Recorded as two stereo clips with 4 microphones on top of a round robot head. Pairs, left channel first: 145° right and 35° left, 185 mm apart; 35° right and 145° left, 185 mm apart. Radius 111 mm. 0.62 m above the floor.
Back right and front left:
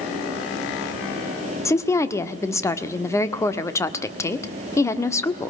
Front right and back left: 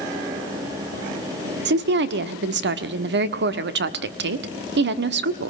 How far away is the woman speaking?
About 1.4 m.